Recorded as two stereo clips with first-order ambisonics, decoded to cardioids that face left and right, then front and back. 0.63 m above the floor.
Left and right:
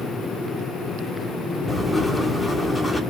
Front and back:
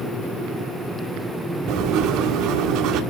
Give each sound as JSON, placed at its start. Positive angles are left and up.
{"t": 1.7, "sound": "writing", "azimuth_deg": 170, "distance_m": 1.8}